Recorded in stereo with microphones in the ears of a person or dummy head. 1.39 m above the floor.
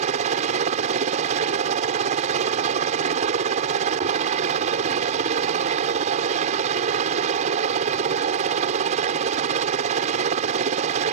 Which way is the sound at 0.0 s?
35° right (ahead or behind).